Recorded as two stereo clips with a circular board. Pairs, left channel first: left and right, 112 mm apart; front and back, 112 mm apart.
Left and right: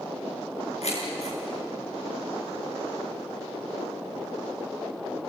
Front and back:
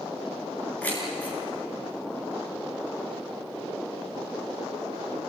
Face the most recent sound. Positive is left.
turn(degrees=75)